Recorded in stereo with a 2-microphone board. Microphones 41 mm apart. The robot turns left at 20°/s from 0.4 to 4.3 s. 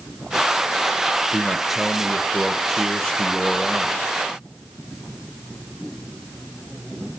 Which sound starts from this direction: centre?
A man speaking, at 1.3 s.